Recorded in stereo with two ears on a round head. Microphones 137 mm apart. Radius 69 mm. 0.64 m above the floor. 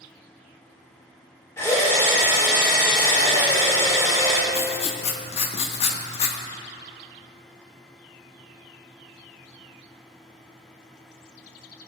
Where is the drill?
20° left (ahead or behind), 2.5 m.